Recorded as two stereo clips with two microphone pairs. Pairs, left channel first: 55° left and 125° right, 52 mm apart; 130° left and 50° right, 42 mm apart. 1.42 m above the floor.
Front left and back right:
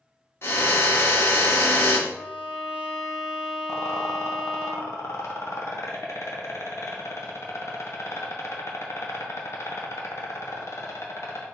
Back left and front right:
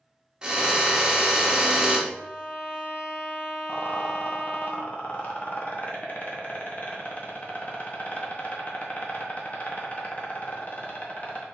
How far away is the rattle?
About 0.9 m.